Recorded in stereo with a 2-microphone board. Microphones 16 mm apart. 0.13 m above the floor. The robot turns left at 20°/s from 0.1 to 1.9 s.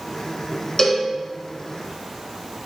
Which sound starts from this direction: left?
A cowbell, at 0.8 s.